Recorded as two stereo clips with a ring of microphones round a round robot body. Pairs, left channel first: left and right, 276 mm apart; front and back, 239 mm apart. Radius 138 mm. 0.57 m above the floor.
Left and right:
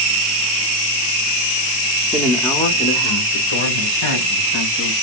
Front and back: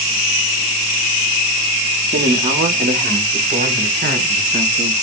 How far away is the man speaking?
About 0.7 m.